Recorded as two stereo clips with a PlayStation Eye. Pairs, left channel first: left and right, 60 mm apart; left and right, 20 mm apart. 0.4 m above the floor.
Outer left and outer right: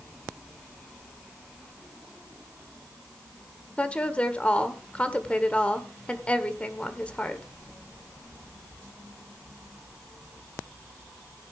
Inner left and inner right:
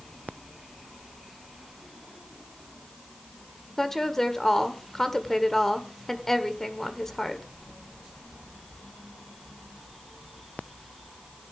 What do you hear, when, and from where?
3.8 s a woman speaking: 20° left (ahead or behind), 1.3 m